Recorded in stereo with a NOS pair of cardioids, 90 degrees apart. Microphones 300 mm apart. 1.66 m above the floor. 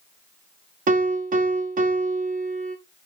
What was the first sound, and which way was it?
A piano, 30° right.